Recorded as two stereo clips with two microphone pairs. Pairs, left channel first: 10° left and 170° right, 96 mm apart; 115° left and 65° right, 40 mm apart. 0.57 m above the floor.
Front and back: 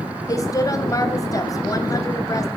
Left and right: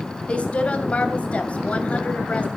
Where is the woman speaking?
60° left, 2.5 m.